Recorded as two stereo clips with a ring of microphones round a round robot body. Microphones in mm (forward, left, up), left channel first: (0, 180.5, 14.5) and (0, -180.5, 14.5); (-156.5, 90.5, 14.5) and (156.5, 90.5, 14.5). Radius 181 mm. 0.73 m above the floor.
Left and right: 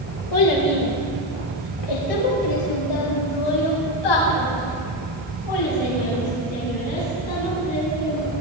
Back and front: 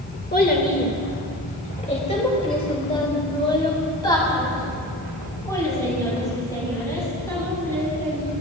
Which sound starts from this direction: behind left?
A child speaking, at 0.3 s.